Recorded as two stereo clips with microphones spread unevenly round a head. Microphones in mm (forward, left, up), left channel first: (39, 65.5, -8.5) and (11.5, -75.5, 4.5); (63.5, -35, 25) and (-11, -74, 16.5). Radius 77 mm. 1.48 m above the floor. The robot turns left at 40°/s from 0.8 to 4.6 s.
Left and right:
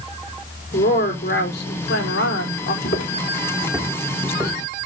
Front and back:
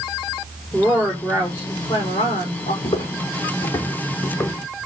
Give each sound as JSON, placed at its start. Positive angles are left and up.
{"t": 0.7, "sound": "a woman speaking", "azimuth_deg": 135, "distance_m": 3.5}
{"t": 2.8, "sound": "footsteps", "azimuth_deg": 55, "distance_m": 3.5}